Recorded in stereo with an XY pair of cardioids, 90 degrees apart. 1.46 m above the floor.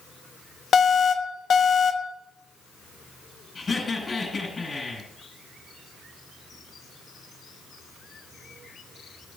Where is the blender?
No blender in this recording.